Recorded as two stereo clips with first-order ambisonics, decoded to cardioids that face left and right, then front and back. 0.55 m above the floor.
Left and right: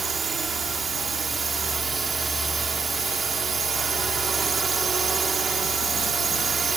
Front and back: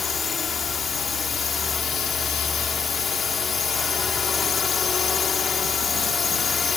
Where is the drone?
50° right.